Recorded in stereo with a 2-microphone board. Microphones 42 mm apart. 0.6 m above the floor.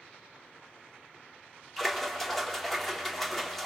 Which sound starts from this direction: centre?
A splash, at 1.8 s.